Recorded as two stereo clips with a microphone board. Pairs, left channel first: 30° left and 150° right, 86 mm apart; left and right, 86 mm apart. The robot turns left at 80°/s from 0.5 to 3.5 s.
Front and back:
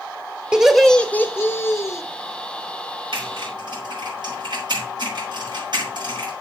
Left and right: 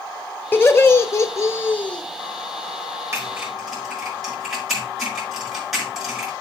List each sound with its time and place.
0.5 s laughter: 140° left, 1.3 m; by 2.0 s 20° left, 1.3 m
3.1 s typing on a keyboard: 145° right, 6 m; by 6.3 s 175° right, 6 m